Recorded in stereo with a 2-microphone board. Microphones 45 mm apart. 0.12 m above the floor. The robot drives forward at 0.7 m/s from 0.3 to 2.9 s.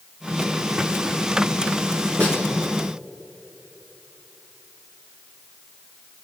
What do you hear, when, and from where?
2.2 s a snare drum: 30° left (ahead or behind), 4.5 m; by 2.4 s 35° left (ahead or behind), 4.5 m